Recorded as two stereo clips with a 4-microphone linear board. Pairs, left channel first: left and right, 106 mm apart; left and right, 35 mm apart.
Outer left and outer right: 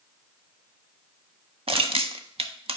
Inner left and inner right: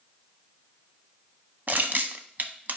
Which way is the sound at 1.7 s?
60° right (ahead or behind).